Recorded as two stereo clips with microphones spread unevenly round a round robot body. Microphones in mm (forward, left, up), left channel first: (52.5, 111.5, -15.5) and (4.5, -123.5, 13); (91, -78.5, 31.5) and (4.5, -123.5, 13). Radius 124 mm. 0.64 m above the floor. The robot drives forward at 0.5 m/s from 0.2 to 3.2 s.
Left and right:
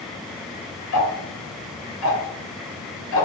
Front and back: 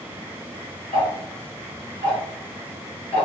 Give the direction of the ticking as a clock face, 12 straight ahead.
10 o'clock.